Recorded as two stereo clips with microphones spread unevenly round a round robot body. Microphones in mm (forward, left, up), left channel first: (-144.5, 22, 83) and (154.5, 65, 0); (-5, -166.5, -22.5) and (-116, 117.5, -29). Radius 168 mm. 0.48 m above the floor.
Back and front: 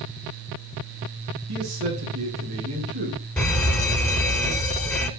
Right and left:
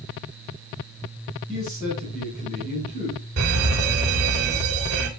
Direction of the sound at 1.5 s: Straight ahead.